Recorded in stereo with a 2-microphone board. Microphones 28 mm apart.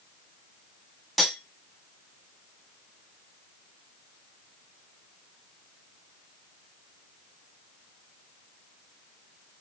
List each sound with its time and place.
1.2 s cutlery clinking: centre (ahead or behind), 1.3 m